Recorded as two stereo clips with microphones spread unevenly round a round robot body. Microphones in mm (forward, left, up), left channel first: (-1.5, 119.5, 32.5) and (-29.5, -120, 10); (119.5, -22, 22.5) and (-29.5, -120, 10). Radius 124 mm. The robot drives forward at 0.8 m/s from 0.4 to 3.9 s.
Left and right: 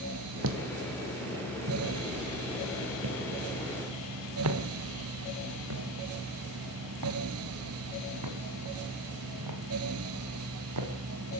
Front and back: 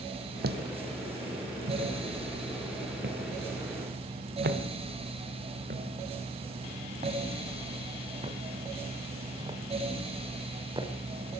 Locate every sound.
0.4 s footsteps: 125° right, 1.5 m; by 10.9 s 80° right, 5.5 m